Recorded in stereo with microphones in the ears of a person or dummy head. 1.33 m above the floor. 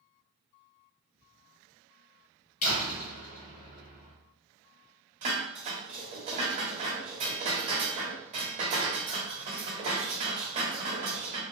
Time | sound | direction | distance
1.2 | whispering | 10° right (ahead or behind) | 0.6 m
2.6 | a door slam | 45° left (ahead or behind) | 1.0 m
5.2 | dishes clattering | 35° right (ahead or behind) | 0.8 m